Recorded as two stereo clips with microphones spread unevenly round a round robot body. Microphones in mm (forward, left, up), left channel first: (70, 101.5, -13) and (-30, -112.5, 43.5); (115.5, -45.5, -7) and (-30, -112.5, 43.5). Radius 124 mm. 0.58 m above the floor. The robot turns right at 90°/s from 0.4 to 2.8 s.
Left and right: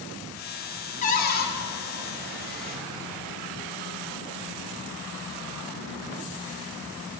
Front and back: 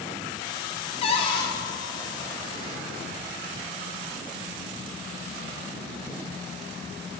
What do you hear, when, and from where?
1.0 s a cupboard door: 30° left, 0.5 m; by 1.5 s 75° left, 0.5 m